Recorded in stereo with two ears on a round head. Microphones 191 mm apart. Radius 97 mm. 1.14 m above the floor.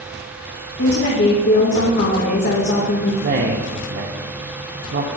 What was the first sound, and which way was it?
A woman speaking, 55° left (ahead or behind).